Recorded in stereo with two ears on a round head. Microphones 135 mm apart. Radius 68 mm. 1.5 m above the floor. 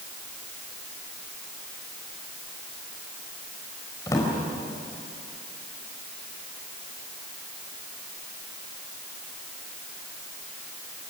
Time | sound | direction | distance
4.1 | a drawer | 20° left (ahead or behind) | 4 m